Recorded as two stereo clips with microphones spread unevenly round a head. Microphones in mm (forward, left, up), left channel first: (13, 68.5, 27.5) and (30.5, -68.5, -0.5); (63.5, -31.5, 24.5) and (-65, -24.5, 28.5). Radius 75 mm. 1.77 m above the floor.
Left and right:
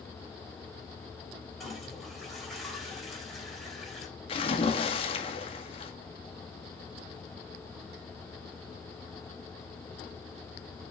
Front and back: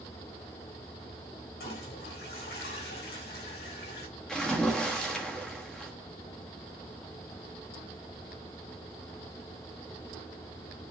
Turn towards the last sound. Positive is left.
turn(degrees=85)